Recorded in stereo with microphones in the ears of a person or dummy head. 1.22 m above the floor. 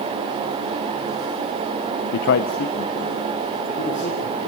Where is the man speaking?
60° left (ahead or behind), 0.5 m; by 4.5 s 35° left (ahead or behind), 3 m.